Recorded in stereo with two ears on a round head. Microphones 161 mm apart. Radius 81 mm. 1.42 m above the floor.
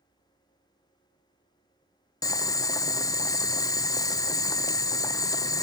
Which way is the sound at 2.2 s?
20° left (ahead or behind).